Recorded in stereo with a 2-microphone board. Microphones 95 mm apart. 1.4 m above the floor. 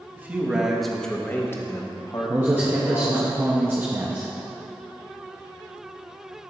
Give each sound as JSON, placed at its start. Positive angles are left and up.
{"t": 0.2, "sound": "a man speaking", "side_deg": -20, "distance_m": 1.3}
{"t": 2.3, "sound": "a man speaking", "side_deg": -20, "distance_m": 0.9}